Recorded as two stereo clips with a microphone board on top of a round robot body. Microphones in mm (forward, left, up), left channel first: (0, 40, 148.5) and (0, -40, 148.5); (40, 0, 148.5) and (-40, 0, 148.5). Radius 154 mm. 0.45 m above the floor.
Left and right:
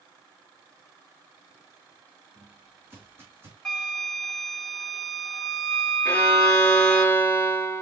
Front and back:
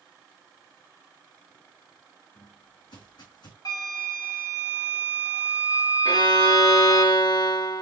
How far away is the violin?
About 0.8 m.